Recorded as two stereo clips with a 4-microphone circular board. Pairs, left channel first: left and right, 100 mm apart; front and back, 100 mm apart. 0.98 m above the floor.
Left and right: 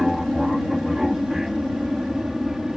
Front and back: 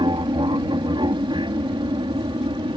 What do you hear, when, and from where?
0.0 s an aircraft: 175° right